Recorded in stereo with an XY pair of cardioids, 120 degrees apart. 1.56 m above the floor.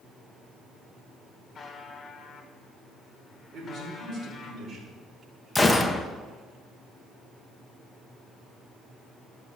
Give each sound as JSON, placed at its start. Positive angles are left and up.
{"t": 1.6, "sound": "a buzzer", "azimuth_deg": 35, "distance_m": 1.8}
{"t": 3.5, "sound": "a man speaking", "azimuth_deg": -45, "distance_m": 5.0}
{"t": 5.5, "sound": "a gunshot", "azimuth_deg": 10, "distance_m": 1.0}